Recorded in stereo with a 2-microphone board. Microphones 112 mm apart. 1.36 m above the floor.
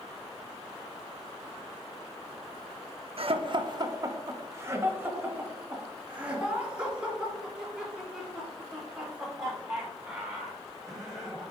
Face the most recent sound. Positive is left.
turn(degrees=0)  # may be behind; listen again after turning